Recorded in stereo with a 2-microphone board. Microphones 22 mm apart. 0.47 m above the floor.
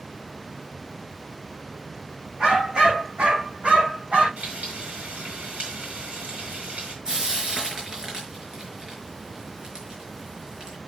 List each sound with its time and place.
2.4 s a dog barking: 40° right (ahead or behind), 7 m; by 4.3 s 50° right (ahead or behind), 6.5 m
4.4 s frying: 75° right (ahead or behind), 5.5 m
7.0 s frying: 25° right (ahead or behind), 5 m